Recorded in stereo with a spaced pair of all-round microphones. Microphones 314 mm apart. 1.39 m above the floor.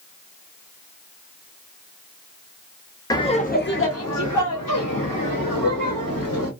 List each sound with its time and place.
3.1 s laughter: 10° left (ahead or behind), 0.7 m; by 6.5 s 75° left (ahead or behind), 1.5 m